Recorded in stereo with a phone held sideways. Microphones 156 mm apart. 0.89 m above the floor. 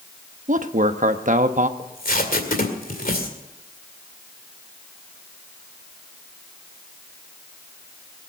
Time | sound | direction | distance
0.5 | a man speaking | 55° right (ahead or behind) | 1.0 m
1.8 | tape being pulled | 65° left (ahead or behind) | 2 m